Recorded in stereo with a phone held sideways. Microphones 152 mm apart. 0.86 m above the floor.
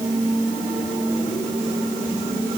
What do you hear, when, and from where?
Only background noise.